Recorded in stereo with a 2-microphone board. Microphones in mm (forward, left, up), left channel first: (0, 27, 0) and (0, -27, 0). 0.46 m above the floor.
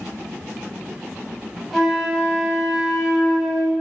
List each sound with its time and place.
1.7 s a flute: centre (ahead or behind), 1.4 m